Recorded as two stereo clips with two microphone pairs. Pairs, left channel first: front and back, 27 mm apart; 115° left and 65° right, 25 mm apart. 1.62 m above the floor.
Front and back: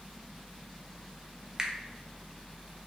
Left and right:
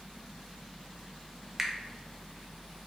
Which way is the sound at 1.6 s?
135° right.